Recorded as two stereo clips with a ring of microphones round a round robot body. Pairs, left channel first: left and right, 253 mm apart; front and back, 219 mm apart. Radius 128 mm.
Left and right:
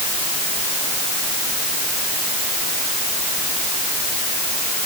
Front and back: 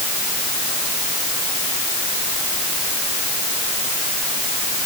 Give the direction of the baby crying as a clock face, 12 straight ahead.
I don't hear a baby crying.